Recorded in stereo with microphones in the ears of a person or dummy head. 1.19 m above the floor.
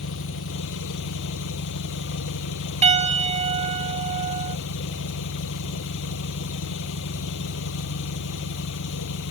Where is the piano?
40° right (ahead or behind).